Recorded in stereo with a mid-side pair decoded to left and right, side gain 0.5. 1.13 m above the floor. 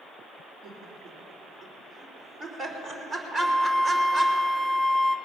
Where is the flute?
15° right, 1.1 m.